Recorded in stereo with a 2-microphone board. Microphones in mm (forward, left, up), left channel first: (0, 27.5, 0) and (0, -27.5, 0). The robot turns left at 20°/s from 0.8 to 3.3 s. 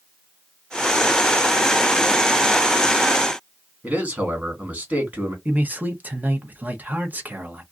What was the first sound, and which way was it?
A man speaking, 30° right (ahead or behind).